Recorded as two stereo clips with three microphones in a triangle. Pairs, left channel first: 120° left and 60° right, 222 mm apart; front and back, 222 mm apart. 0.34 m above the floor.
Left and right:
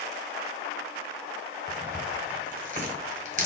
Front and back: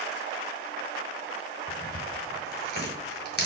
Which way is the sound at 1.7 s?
20° right.